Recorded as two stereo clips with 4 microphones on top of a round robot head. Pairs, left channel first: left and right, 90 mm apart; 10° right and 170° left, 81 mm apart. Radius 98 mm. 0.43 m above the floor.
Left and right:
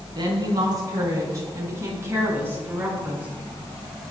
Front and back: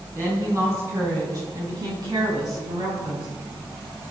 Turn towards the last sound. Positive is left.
turn(degrees=-165)